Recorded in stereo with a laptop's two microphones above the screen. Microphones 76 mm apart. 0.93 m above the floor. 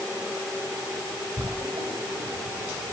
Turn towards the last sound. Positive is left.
turn(degrees=-65)  # may be behind; listen again after turning